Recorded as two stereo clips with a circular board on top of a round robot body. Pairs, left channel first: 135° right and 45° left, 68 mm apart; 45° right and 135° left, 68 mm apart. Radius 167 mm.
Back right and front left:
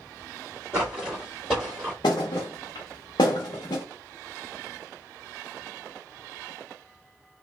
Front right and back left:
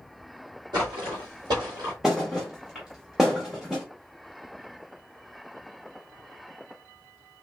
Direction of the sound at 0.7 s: 110° left.